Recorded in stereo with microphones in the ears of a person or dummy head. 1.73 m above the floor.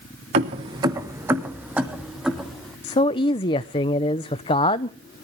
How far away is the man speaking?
About 0.6 m.